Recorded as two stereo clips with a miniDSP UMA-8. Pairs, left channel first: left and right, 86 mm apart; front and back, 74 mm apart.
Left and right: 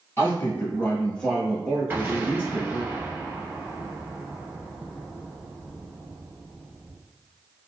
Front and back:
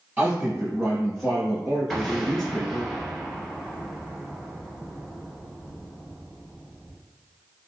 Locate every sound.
0.2 s a man speaking: 120° left, 1.5 m; by 2.9 s 70° right, 1.6 m
1.9 s an explosion: 85° right, 1.6 m